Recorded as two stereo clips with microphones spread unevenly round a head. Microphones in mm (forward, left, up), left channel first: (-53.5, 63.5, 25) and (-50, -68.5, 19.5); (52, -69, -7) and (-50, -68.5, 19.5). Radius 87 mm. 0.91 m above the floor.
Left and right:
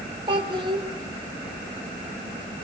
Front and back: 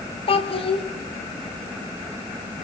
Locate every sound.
0.3 s a child speaking: 25° right, 2 m